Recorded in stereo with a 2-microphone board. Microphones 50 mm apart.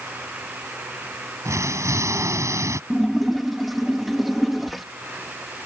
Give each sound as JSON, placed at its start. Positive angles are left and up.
{"t": 1.4, "sound": "an explosion", "side_deg": -85}
{"t": 2.9, "sound": "a splash", "side_deg": 0}